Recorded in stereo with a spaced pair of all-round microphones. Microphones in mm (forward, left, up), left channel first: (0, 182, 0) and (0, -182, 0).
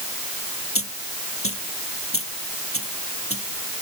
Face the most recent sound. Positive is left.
turn(degrees=35)  # may be behind; listen again after turning